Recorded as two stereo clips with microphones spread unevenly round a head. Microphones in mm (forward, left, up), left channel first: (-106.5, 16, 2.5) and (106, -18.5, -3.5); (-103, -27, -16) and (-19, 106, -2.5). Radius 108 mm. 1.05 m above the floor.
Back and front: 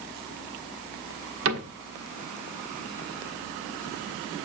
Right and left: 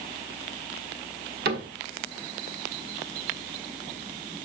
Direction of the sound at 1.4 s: 20° left.